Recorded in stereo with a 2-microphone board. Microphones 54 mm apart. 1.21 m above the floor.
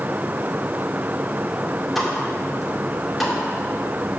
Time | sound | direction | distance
1.9 | a pop | centre (ahead or behind) | 2.5 m